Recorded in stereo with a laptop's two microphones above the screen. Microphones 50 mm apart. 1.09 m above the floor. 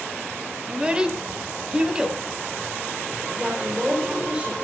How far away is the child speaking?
About 4.5 m.